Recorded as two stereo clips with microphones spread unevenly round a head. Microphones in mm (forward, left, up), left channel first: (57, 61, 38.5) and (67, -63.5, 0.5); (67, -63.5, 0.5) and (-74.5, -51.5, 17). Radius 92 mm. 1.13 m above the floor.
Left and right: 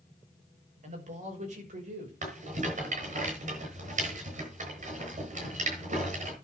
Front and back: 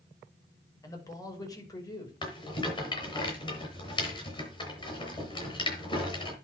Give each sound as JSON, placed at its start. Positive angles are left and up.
{"t": 0.8, "sound": "a man speaking", "azimuth_deg": -70, "distance_m": 6.0}
{"t": 2.2, "sound": "a rattle", "azimuth_deg": -65, "distance_m": 7.0}